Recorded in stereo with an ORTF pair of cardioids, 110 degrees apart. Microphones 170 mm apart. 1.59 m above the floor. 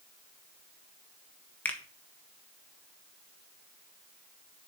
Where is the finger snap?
10° left, 1.6 m.